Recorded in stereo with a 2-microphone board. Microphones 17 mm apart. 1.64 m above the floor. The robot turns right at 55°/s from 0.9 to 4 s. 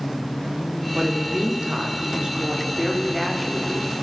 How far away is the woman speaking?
About 5.5 m.